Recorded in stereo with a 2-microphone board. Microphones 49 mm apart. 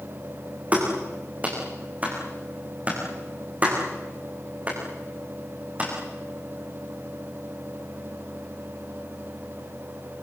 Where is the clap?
35° right (ahead or behind), 8 m.